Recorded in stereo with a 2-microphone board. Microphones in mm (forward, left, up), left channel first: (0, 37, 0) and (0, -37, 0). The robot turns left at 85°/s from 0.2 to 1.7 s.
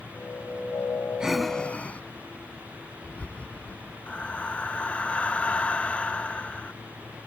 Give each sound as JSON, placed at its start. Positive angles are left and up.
{"t": 1.2, "sound": "breathing", "side_deg": -10}
{"t": 4.1, "sound": "breathing", "side_deg": 20}